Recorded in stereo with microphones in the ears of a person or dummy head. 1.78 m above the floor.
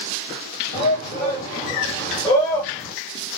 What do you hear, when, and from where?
0.7 s a shout: 45° left (ahead or behind), 3.5 m; by 2.9 s 5° left (ahead or behind), 2.5 m